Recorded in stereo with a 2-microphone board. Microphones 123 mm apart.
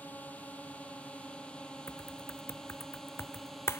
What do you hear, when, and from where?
0.0 s a drone: 10° left (ahead or behind); by 3.8 s centre (ahead or behind)
1.9 s typing on a keyboard: 20° left (ahead or behind)